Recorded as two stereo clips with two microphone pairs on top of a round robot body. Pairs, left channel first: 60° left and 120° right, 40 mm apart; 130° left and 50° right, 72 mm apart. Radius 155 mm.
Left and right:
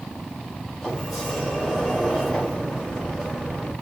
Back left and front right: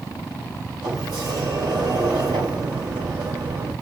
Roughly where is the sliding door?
Ahead.